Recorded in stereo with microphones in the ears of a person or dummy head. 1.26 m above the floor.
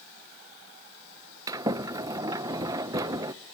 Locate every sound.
1.5 s a sliding door: 20° right (ahead or behind), 0.5 m